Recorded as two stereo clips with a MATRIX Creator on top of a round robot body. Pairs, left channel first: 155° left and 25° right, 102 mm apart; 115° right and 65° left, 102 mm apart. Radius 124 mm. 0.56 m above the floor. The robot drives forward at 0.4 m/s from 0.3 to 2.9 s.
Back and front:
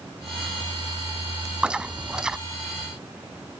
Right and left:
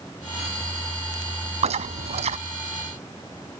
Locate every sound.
1.6 s chewing: 60° left